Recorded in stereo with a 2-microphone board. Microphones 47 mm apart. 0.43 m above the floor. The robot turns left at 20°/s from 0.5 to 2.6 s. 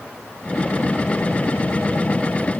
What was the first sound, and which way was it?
Only background noise.